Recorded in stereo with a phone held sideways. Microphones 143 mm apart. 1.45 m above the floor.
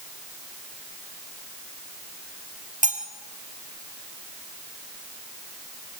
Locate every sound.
2.8 s cutlery clinking: 60° right (ahead or behind), 3 m